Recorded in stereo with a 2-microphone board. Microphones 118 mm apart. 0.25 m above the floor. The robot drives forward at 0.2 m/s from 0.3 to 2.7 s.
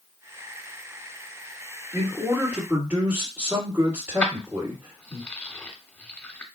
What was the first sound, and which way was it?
A man speaking, 20° right (ahead or behind).